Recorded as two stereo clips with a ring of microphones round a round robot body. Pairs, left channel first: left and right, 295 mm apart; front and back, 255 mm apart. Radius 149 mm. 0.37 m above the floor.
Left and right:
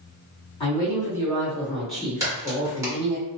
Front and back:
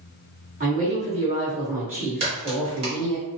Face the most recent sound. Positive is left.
turn(degrees=-155)